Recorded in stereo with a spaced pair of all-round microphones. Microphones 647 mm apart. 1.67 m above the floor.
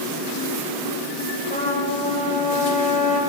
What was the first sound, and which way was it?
A trumpet, 10° left (ahead or behind).